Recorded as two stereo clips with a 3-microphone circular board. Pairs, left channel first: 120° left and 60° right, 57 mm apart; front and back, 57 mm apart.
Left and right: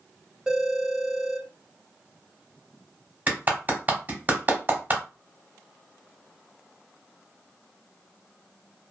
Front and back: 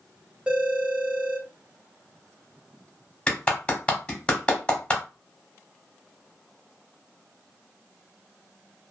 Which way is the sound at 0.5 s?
125° right.